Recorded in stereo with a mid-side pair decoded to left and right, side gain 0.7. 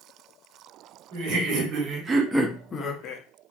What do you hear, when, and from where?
1.1 s laughter: 65° right, 1.1 m; by 3.2 s 60° left, 0.7 m